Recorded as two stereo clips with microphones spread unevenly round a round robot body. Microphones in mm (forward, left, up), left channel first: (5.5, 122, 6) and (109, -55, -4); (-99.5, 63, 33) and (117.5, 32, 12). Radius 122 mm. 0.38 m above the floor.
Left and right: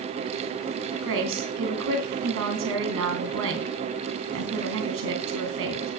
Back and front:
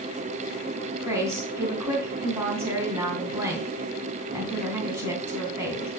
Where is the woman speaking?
85° right, 3 m.